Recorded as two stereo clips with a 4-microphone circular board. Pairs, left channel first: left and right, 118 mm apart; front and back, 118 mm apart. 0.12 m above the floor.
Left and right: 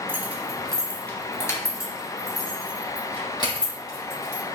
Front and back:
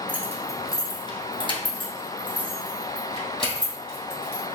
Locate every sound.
0.1 s keys jangling: 55° right, 1.0 m; by 4.4 s 40° left, 3.5 m